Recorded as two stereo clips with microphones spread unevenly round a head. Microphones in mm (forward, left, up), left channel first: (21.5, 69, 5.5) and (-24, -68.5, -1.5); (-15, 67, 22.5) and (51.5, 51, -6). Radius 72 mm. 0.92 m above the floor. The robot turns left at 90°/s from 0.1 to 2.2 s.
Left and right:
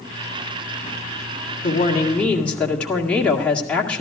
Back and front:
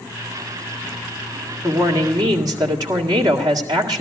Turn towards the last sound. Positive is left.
turn(degrees=-10)